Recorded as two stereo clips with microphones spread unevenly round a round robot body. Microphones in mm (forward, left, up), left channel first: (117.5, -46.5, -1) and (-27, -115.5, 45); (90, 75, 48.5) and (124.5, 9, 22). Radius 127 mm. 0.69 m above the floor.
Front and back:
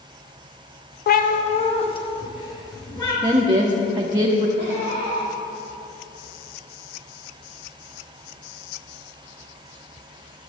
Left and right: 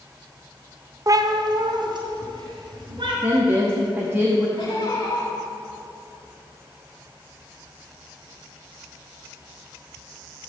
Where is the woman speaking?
80° right, 0.9 m.